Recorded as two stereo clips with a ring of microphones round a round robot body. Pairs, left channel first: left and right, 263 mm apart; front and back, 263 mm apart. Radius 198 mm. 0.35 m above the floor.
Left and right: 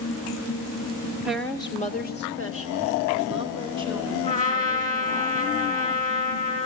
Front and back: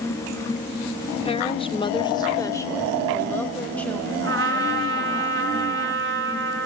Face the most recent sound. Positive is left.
turn(degrees=145)